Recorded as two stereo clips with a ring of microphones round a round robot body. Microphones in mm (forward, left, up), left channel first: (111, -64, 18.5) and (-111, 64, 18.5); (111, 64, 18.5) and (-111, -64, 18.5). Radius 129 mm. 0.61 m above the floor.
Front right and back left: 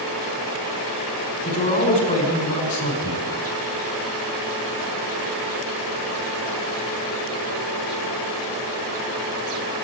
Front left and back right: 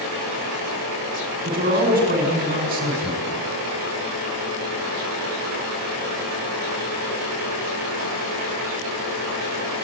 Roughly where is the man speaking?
Right.